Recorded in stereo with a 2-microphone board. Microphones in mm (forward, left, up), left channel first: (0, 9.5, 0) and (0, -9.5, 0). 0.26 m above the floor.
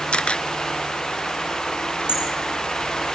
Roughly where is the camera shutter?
Left.